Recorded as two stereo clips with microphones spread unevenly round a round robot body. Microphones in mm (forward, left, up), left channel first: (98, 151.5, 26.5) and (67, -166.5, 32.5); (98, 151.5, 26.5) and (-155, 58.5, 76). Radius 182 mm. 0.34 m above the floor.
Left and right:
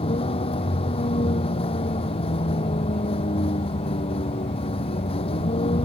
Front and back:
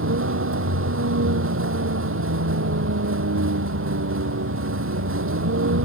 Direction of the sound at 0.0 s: 160° left.